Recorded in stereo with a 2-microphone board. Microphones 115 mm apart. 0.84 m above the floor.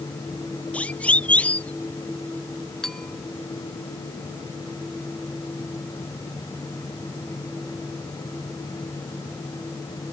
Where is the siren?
10° left (ahead or behind).